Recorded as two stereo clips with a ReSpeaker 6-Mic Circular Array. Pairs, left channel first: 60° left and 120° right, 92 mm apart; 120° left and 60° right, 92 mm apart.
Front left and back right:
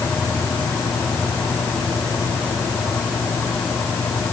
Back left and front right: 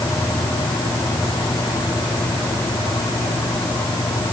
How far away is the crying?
No crying in this recording.